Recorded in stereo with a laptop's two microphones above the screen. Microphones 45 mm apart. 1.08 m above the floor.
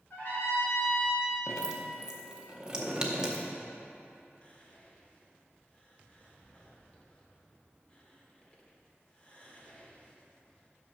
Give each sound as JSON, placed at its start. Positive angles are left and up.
{"t": 0.1, "sound": "a trumpet", "side_deg": 50, "distance_m": 2.0}
{"t": 1.5, "sound": "dripping", "side_deg": -15, "distance_m": 0.6}
{"t": 4.4, "sound": "whispering", "side_deg": 25, "distance_m": 1.3}